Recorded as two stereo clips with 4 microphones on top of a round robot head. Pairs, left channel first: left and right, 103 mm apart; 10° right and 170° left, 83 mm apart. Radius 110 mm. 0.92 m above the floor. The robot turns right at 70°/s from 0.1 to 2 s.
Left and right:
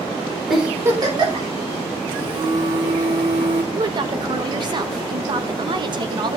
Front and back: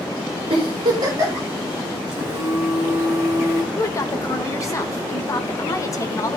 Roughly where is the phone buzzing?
Behind right.